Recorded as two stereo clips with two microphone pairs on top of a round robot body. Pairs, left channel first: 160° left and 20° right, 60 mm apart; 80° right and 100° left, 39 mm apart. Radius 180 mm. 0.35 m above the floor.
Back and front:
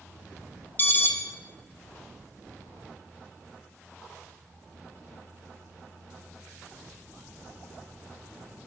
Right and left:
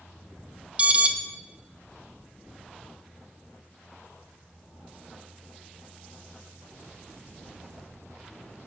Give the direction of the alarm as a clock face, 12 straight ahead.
8 o'clock.